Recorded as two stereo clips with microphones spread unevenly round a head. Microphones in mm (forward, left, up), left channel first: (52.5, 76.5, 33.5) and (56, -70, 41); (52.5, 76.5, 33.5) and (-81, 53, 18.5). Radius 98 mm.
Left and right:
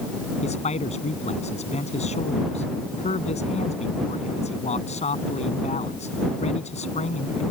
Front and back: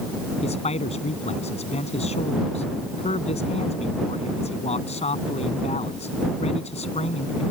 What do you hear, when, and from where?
0.4 s a man speaking: 50° left